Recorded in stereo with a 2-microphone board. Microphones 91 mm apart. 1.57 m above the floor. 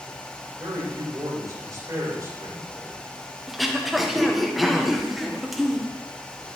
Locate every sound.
0.6 s a man speaking: 40° right (ahead or behind), 6 m
3.5 s throat clearing: 5° right (ahead or behind), 1.1 m